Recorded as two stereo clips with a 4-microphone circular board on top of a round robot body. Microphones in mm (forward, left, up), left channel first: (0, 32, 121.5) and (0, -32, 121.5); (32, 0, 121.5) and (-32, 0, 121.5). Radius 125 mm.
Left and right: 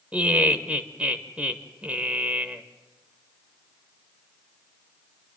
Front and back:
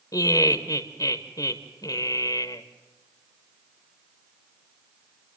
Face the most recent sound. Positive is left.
turn(degrees=-20)